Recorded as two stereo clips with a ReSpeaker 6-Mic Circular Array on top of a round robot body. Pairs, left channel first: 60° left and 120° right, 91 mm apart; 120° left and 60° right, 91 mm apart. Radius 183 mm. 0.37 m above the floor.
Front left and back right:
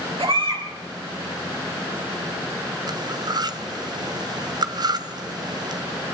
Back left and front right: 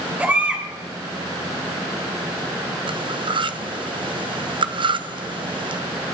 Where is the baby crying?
130° right, 6 m.